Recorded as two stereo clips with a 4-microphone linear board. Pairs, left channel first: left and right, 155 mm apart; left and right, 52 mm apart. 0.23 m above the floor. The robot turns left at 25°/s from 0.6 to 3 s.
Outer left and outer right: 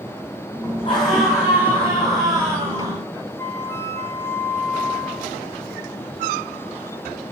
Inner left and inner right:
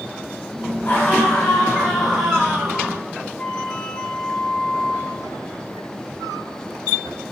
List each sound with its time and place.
0.8 s a scream: 35° left, 8.5 m; by 3.0 s 20° right, 8.5 m
3.4 s a flute: 15° left (ahead or behind), 3.5 m